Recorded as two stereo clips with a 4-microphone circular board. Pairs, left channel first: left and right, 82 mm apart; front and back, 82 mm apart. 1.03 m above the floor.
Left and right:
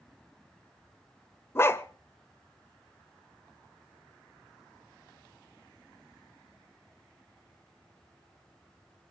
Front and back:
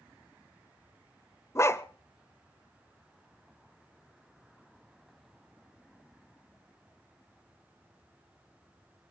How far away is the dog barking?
About 0.9 m.